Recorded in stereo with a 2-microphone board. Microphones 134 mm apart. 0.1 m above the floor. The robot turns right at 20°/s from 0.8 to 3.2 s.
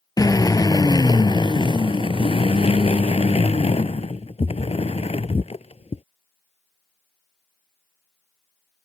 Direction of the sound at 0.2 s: 40° left.